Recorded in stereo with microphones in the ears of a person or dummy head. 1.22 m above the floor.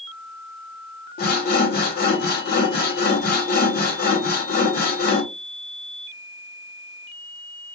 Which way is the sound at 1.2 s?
50° left (ahead or behind).